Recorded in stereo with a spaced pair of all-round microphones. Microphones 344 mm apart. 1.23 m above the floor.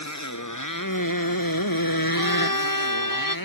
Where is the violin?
70° left (ahead or behind).